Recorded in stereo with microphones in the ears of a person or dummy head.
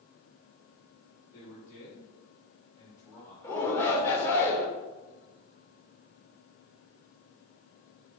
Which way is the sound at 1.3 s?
50° left (ahead or behind).